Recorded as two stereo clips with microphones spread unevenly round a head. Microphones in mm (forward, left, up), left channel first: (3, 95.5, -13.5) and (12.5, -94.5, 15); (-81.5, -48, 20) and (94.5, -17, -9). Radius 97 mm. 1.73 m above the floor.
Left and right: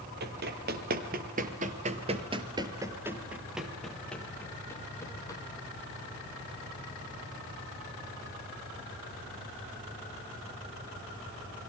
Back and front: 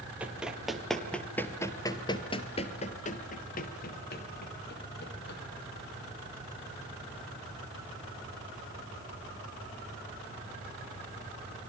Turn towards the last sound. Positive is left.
turn(degrees=170)